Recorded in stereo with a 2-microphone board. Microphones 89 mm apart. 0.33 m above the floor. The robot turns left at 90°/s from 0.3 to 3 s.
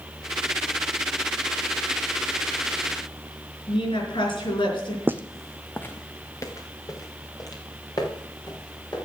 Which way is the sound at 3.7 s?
75° left (ahead or behind).